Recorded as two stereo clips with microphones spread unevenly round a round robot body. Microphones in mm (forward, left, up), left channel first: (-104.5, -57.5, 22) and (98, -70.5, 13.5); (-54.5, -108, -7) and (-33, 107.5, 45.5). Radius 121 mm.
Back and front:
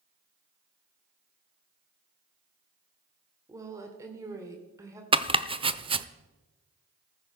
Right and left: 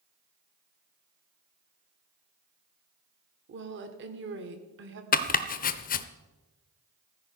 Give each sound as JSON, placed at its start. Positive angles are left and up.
{"t": 3.5, "sound": "a woman speaking", "azimuth_deg": 60, "distance_m": 1.7}
{"t": 5.1, "sound": "chopping", "azimuth_deg": -65, "distance_m": 0.6}